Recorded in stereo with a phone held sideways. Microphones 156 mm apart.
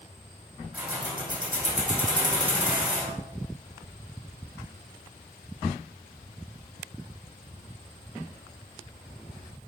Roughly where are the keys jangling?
Centre.